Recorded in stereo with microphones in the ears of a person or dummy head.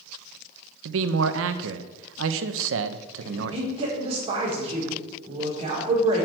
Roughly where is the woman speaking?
Right.